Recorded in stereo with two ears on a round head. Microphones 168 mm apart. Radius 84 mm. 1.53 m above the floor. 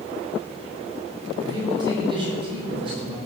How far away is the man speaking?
About 4.5 m.